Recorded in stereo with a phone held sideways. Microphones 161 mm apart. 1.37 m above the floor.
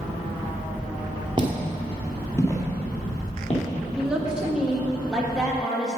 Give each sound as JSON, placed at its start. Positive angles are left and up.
{"t": 1.4, "sound": "footsteps", "side_deg": -30, "distance_m": 1.5}
{"t": 4.0, "sound": "a woman speaking", "side_deg": -5, "distance_m": 1.7}